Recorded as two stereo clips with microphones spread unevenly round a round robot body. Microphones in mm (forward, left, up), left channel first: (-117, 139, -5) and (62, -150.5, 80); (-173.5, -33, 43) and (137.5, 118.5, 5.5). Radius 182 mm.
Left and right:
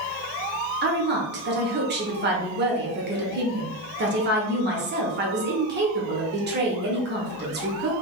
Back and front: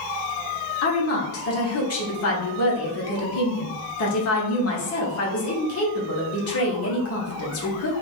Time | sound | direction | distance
0.8 | a woman speaking | 120° right | 1.2 m